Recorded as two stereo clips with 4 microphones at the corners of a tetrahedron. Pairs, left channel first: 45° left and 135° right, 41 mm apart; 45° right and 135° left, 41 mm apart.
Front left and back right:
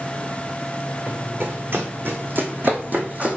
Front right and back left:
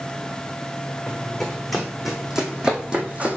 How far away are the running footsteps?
About 2.0 m.